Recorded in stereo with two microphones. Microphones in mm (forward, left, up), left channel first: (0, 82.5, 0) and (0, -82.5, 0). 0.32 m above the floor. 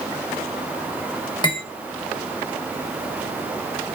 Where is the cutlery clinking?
25° left (ahead or behind), 0.8 m.